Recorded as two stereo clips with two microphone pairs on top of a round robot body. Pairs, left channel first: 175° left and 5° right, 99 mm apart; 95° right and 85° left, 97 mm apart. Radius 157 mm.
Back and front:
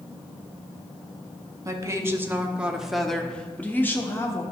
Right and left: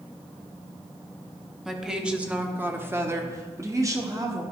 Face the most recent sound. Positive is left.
turn(degrees=125)